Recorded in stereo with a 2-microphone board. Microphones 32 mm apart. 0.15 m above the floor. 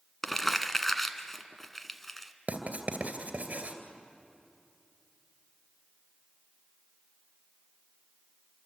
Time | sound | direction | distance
0.2 | crumpling | 5° left (ahead or behind) | 1.2 m
2.5 | writing | 50° right (ahead or behind) | 2.5 m